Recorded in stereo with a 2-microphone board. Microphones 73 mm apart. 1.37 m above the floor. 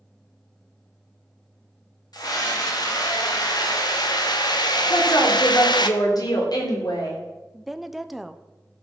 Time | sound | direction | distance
2.1 | a scream | 65° left (ahead or behind) | 3 m
4.9 | a woman speaking | 65° left (ahead or behind) | 3 m
7.5 | a woman speaking | 5° right (ahead or behind) | 0.7 m